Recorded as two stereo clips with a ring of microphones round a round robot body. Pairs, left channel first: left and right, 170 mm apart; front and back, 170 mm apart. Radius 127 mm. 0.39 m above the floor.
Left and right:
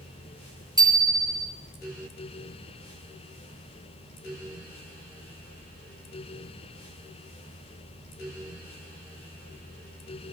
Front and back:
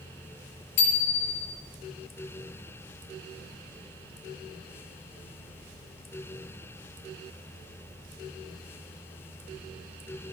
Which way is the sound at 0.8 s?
20° right.